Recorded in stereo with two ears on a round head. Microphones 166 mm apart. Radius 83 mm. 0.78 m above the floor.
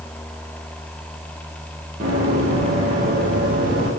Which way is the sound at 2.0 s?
35° right (ahead or behind).